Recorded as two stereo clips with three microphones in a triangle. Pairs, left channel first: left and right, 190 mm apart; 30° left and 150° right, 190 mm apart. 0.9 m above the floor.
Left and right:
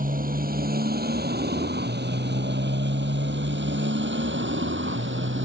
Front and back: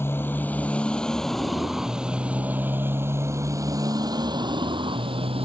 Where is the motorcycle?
50° right; by 5.5 s 90° right.